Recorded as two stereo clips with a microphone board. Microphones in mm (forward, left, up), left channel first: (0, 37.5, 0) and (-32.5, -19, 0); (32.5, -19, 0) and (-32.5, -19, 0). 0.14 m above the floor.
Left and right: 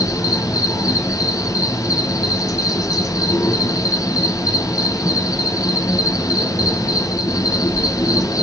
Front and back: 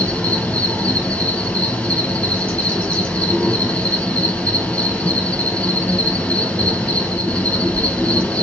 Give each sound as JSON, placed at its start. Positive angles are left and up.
{"t": 0.0, "sound": "an insect", "azimuth_deg": 70, "distance_m": 2.0}